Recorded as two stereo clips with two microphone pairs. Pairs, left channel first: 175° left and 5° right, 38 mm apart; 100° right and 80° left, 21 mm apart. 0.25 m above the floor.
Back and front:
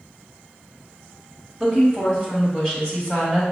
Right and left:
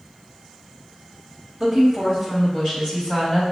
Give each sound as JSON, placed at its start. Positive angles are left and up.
{"t": 1.6, "sound": "a woman speaking", "azimuth_deg": 130, "distance_m": 1.4}